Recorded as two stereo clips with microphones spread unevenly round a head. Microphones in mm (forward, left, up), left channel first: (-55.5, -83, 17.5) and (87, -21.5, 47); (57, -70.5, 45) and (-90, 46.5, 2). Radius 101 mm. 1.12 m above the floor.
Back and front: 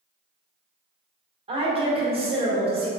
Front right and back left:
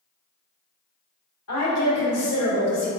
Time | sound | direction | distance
1.5 | a woman speaking | 30° right | 1.2 m